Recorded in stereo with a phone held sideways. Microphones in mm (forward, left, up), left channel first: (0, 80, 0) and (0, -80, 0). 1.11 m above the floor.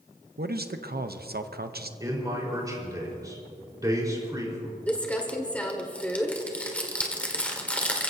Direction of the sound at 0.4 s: 65° right (ahead or behind).